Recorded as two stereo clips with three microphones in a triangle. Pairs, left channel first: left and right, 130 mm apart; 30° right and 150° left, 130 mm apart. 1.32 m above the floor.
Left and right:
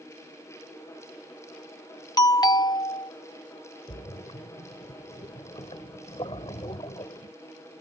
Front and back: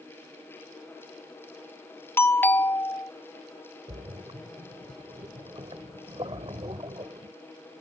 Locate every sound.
2.2 s a doorbell: 40° left
3.9 s a splash: 120° left